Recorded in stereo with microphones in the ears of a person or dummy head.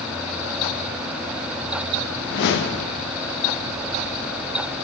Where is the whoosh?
65° left (ahead or behind), 1.2 m.